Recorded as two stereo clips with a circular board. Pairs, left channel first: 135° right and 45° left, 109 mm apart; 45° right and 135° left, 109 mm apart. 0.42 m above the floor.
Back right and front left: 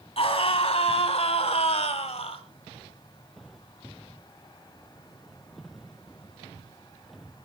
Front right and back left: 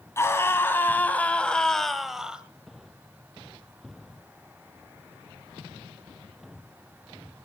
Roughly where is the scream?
Right.